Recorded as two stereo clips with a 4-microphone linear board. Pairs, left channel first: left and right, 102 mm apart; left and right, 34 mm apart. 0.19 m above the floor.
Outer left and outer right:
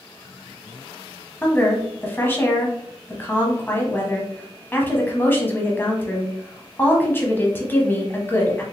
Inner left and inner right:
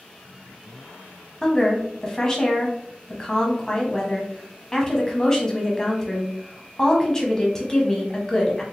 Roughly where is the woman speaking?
Centre.